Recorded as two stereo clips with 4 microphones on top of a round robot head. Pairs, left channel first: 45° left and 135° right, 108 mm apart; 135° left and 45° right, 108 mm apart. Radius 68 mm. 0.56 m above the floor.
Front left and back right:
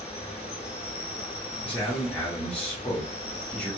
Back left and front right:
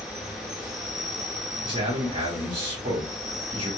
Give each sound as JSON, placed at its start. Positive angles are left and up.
{"t": 0.0, "sound": "an insect", "azimuth_deg": 40, "distance_m": 1.2}
{"t": 1.6, "sound": "a man speaking", "azimuth_deg": -30, "distance_m": 1.5}